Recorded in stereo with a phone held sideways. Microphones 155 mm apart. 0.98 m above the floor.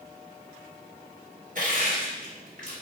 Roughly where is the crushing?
Right.